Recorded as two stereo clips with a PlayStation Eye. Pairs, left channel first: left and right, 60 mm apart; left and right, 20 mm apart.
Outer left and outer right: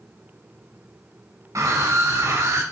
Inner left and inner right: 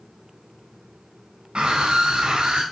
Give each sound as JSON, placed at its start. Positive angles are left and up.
{"t": 1.6, "sound": "a scream", "side_deg": -65, "distance_m": 3.5}